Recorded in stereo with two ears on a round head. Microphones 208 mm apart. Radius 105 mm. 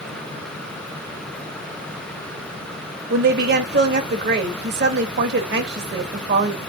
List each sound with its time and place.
3.1 s a woman speaking: 45° right (ahead or behind), 1.7 m